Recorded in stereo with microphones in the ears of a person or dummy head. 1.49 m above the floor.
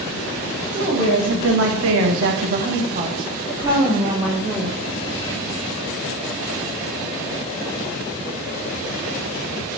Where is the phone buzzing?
No phone buzzing in this recording.